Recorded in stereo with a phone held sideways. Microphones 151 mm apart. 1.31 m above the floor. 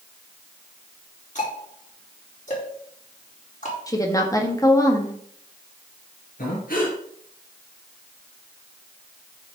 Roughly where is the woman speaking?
Left.